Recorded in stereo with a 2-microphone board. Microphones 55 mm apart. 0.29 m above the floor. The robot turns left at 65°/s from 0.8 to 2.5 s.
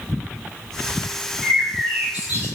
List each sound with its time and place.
1.4 s a bird: straight ahead, 1.2 m; by 2.5 s 70° right, 1.2 m